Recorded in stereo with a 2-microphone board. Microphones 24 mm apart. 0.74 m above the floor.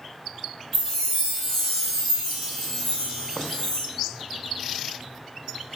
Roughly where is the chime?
Centre.